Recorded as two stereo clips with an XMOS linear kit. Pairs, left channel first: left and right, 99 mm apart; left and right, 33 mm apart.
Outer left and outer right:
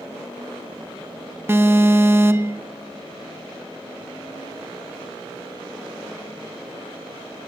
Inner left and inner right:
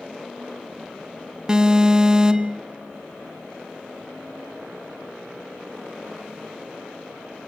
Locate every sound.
1.5 s an alarm: 25° right (ahead or behind), 0.8 m